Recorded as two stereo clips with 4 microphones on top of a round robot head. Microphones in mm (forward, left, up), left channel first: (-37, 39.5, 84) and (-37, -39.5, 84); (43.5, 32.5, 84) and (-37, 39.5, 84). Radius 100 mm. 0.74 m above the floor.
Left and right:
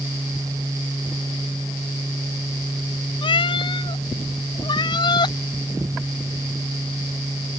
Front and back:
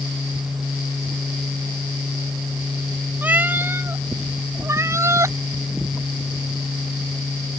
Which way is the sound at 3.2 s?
105° left.